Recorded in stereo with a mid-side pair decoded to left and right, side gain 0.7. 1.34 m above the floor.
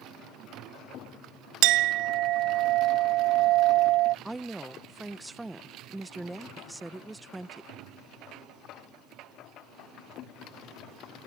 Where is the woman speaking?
5° right.